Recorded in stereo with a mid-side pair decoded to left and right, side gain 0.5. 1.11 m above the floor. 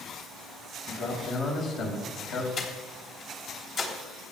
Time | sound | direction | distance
0.9 | a man speaking | 70° left | 5 m
2.6 | breathing | 60° left | 3 m